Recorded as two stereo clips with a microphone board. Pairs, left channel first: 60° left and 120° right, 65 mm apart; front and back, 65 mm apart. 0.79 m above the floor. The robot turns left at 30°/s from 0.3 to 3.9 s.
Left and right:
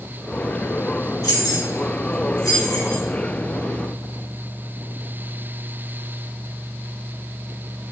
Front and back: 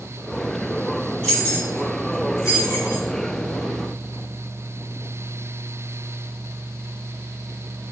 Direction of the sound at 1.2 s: 75° left.